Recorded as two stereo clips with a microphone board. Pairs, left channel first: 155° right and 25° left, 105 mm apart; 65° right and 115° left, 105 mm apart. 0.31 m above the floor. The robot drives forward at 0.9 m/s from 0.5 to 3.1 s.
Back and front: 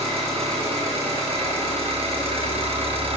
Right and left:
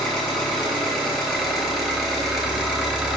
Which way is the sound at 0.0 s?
20° left.